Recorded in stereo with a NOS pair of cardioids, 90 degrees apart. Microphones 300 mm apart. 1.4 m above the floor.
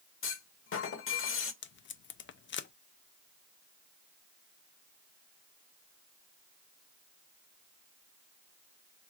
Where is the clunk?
45° left, 1.1 m.